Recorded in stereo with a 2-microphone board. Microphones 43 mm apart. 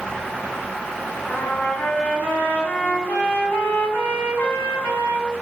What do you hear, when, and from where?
1.3 s a trumpet: 40° left (ahead or behind), 1.4 m